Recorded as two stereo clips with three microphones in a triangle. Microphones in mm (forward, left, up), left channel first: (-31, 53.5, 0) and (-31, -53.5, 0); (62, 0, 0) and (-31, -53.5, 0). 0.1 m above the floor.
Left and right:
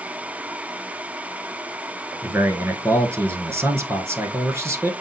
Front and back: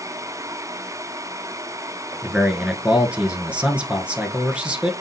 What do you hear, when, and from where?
2.2 s a man speaking: 90° right, 1.1 m